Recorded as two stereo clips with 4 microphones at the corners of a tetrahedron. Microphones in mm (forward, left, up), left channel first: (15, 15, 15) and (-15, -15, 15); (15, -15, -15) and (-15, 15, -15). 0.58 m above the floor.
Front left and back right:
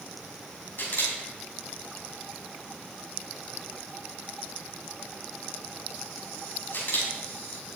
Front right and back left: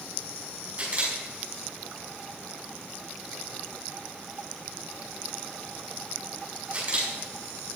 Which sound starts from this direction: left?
A camera shutter, at 0.8 s.